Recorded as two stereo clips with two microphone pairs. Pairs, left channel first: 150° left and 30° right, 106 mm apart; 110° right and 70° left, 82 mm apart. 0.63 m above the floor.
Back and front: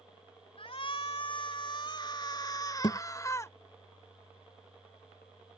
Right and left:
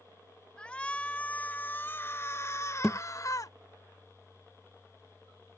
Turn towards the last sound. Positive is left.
turn(degrees=160)